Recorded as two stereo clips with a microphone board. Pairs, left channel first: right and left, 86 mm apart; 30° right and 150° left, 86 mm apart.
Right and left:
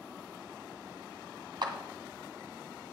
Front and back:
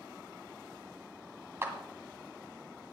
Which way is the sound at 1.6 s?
95° left.